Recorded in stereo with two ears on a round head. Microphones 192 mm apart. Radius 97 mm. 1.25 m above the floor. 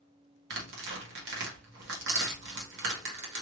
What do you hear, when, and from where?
0.5 s tearing paper: 60° right (ahead or behind), 1.8 m